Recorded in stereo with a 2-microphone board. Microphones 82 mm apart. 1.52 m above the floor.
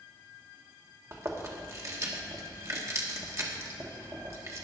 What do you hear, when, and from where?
1.1 s chewing: 35° right (ahead or behind), 1.6 m